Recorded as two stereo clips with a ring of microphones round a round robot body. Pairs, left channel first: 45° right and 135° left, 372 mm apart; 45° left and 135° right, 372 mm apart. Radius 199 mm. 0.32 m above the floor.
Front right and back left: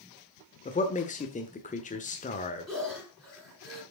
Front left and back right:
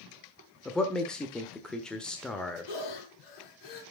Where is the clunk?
No clunk in this recording.